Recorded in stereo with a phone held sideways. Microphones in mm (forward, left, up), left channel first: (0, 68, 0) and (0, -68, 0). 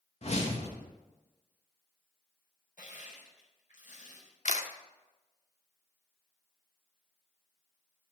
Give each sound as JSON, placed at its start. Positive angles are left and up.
{"t": 0.2, "sound": "a whoosh", "side_deg": 55, "distance_m": 1.5}
{"t": 2.8, "sound": "crushing", "side_deg": 75, "distance_m": 4.0}
{"t": 4.5, "sound": "a camera shutter", "side_deg": 65, "distance_m": 0.9}